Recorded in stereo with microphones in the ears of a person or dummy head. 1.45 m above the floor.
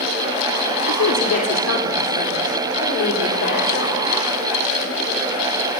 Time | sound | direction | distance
0.9 | a woman speaking | 80° left | 3 m